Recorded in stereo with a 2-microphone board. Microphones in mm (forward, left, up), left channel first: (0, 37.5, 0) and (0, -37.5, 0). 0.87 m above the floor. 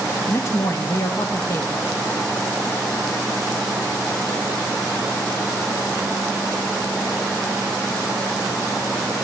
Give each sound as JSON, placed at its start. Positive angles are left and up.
{"t": 0.3, "sound": "a man speaking", "side_deg": 40, "distance_m": 0.8}